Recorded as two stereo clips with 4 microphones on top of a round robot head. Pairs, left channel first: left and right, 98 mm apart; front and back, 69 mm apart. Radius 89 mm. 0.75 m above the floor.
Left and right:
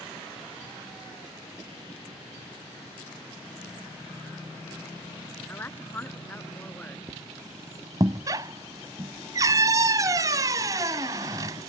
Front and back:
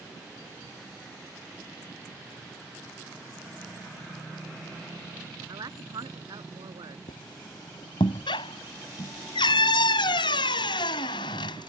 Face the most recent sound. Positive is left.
turn(degrees=-25)